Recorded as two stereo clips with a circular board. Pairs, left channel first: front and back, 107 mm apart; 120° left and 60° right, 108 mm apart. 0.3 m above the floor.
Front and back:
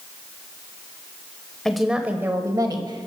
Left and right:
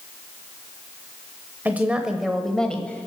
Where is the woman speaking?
70° right, 0.9 m; by 3.1 s 170° right, 1.3 m.